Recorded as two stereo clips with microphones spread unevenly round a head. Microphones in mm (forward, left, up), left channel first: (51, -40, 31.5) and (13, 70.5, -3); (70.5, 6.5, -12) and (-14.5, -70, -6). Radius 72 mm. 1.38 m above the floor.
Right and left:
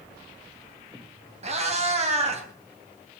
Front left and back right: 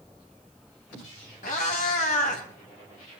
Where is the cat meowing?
75° left, 3 m.